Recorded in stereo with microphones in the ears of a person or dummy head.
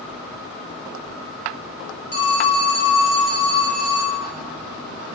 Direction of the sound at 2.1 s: 65° left (ahead or behind).